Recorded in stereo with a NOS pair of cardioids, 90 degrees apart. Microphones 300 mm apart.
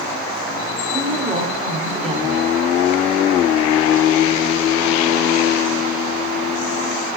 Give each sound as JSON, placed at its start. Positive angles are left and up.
{"t": 0.9, "sound": "a woman speaking", "azimuth_deg": -20, "distance_m": 4.0}